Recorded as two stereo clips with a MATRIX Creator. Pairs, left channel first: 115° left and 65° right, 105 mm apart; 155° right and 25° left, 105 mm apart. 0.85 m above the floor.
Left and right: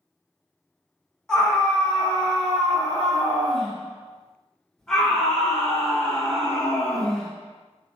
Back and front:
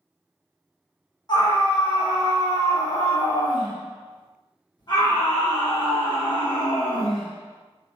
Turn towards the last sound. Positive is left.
turn(degrees=-165)